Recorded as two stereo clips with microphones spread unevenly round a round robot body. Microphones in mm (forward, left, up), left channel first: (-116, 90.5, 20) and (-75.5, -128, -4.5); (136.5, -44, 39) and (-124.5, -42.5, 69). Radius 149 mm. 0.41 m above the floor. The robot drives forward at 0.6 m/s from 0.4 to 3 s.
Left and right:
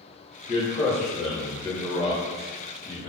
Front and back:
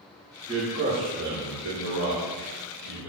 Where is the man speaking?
120° left, 0.8 m; by 3.1 s 170° left, 1.8 m.